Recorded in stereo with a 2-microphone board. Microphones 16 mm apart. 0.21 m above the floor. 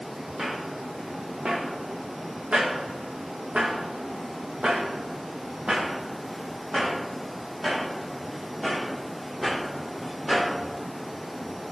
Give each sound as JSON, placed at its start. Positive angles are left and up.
{"t": 0.4, "sound": "footsteps", "side_deg": -45, "distance_m": 2.0}